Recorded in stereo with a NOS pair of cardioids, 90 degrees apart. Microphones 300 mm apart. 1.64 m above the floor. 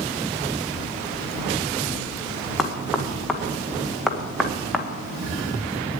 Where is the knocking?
Straight ahead, 1.7 m.